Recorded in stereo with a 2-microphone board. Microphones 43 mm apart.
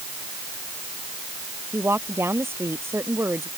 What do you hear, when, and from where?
1.7 s a woman speaking: 80° right